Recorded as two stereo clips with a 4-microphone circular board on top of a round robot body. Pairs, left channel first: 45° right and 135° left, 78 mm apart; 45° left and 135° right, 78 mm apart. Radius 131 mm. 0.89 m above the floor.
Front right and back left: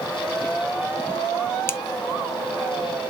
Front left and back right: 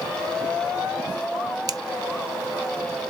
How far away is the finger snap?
About 0.5 m.